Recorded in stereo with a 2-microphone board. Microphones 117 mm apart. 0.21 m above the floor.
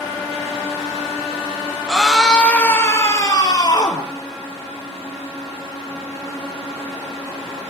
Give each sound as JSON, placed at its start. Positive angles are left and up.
{"t": 1.9, "sound": "a scream", "side_deg": -5, "distance_m": 2.5}